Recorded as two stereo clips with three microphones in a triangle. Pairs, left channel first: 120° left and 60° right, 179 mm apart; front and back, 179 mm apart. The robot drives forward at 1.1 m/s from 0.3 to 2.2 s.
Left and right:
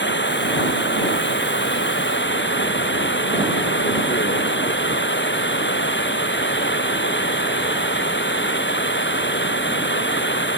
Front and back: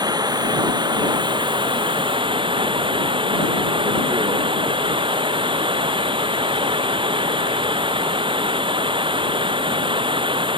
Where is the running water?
110° left; by 10.6 s 115° left.